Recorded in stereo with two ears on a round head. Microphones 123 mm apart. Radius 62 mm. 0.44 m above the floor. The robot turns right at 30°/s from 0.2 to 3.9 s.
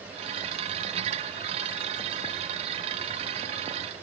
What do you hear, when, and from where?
Only background noise.